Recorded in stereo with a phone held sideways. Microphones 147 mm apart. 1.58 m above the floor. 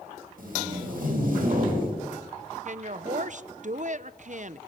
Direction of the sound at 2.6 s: 55° right (ahead or behind).